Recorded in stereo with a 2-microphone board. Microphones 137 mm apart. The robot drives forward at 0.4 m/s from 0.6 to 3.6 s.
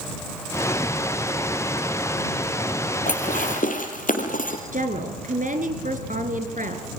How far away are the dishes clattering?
About 4 m.